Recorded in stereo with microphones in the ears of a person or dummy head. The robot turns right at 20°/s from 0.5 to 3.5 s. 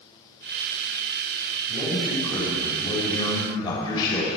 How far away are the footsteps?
I don't hear footsteps.